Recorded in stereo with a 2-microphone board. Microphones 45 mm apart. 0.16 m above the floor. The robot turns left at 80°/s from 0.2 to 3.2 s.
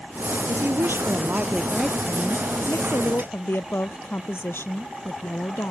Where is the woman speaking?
75° right; by 5.7 s 70° left.